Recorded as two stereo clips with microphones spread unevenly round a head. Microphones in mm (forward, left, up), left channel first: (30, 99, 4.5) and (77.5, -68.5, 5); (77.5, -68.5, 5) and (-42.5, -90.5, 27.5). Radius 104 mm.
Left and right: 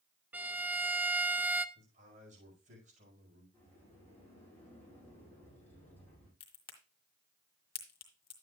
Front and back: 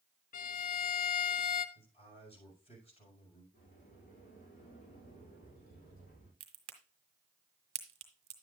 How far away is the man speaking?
About 5.5 m.